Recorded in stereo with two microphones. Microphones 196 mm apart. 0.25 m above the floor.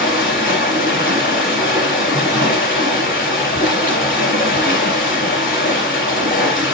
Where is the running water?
45° left (ahead or behind), 4.5 m.